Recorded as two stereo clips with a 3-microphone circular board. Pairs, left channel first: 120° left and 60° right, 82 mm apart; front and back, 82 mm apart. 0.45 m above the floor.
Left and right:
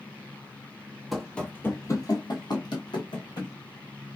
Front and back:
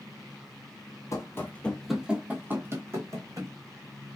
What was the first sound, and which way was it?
Running footsteps, 30° left.